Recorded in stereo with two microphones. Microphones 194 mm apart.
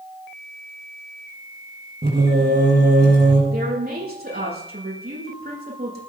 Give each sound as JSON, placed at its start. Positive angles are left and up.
{"t": 2.0, "sound": "singing", "side_deg": -60, "distance_m": 6.5}
{"t": 3.5, "sound": "a woman speaking", "side_deg": -55, "distance_m": 8.5}